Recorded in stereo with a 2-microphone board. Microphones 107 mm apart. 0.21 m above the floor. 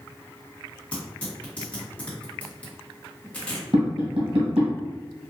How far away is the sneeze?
I don't hear a sneeze.